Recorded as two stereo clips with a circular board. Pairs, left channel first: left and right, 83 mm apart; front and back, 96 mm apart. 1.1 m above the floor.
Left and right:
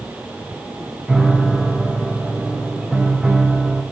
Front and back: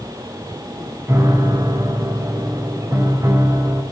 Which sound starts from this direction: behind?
A piano, at 1.1 s.